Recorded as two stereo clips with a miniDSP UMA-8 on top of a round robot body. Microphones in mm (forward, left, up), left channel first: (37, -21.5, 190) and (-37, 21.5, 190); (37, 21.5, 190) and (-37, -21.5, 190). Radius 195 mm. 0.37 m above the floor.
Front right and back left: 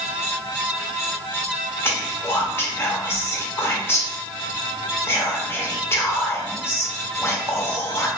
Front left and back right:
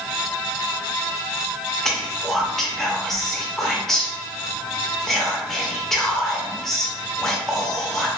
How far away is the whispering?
About 1.0 m.